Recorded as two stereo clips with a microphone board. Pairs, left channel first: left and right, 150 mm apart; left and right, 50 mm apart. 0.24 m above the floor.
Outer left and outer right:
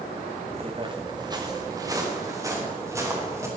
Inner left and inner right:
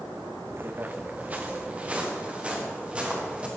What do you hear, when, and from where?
0.5 s footsteps: 45° right (ahead or behind), 0.9 m; by 3.5 s 20° right (ahead or behind), 5 m